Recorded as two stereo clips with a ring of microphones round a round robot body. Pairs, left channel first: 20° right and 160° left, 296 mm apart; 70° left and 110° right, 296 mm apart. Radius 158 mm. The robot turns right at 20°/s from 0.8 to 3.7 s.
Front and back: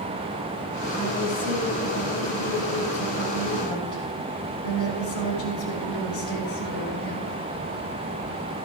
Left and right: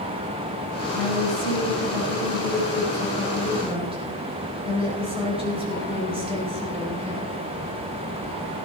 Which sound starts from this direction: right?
A woman speaking, at 0.9 s.